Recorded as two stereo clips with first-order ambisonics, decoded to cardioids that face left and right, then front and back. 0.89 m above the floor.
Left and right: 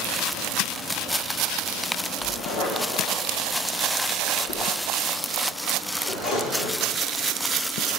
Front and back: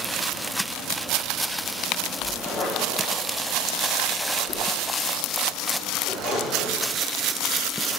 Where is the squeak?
55° left, 5.5 m.